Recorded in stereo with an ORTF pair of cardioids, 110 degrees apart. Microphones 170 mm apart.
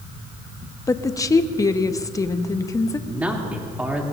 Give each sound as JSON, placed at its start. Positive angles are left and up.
{"t": 0.9, "sound": "a woman speaking", "azimuth_deg": 20, "distance_m": 0.8}
{"t": 3.1, "sound": "a man speaking", "azimuth_deg": -10, "distance_m": 2.5}